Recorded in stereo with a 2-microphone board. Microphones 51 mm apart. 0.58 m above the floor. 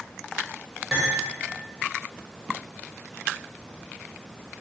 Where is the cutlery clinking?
10° right (ahead or behind), 1.3 m.